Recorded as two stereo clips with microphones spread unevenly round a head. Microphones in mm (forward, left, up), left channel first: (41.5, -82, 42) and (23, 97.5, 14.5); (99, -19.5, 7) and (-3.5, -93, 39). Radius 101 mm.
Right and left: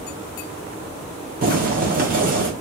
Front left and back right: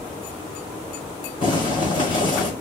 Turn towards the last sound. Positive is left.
turn(degrees=100)